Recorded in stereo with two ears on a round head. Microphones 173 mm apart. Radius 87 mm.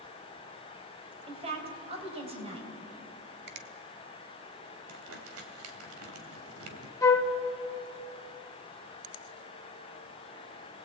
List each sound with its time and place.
1.3 s a woman speaking: 30° right (ahead or behind), 4.5 m
3.5 s a finger snap: 55° right (ahead or behind), 1.4 m
4.9 s crumpling: 80° right, 3 m
7.0 s a flute: 15° left (ahead or behind), 1.6 m